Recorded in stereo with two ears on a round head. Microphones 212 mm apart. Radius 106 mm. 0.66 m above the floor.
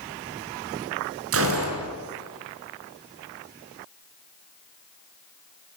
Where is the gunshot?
65° right (ahead or behind), 5.5 m.